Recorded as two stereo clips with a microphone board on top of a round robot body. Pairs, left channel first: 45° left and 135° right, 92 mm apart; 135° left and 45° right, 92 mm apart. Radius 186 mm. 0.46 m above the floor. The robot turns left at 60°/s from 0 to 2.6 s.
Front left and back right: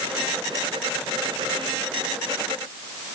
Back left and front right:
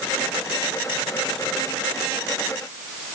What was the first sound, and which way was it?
Only background noise.